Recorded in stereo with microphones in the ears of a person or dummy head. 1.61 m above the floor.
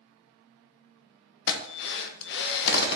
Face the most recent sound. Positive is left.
turn(degrees=65)  # may be behind; listen again after turning